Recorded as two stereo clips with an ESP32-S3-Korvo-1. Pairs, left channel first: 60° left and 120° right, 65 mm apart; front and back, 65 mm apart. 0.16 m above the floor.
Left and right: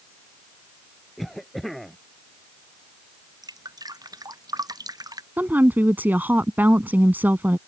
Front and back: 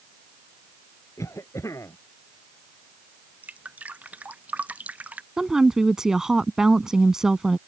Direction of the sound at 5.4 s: 105° right.